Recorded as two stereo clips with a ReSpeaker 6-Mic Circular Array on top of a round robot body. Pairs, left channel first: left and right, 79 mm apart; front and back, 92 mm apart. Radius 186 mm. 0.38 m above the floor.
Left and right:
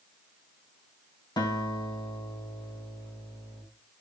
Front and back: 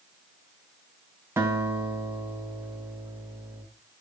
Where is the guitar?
115° left, 4 m.